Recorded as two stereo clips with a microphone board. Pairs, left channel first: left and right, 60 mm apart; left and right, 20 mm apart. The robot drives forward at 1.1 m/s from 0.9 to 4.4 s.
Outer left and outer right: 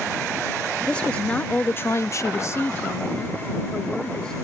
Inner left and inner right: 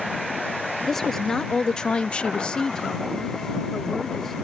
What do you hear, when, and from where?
0.9 s a woman speaking: 20° left (ahead or behind); by 4.3 s 15° left (ahead or behind)